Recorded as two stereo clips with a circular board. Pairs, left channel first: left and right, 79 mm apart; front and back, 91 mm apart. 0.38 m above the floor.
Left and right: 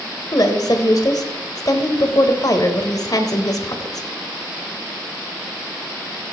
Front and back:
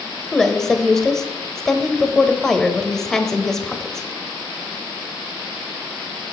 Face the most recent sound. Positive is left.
turn(degrees=85)